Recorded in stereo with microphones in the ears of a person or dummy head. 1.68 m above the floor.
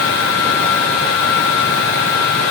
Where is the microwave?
I don't hear a microwave.